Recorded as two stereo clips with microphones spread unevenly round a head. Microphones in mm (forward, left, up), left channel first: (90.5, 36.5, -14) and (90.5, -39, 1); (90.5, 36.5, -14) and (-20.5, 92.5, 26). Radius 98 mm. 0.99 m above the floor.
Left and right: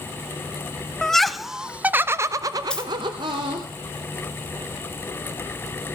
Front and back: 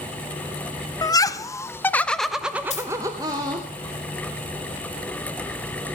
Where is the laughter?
15° left, 1.0 m; by 3.7 s 135° right, 1.3 m.